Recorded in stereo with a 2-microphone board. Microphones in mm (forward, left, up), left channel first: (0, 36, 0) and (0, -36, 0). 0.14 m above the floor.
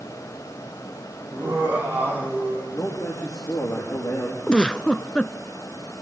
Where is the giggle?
15° left (ahead or behind), 0.6 m.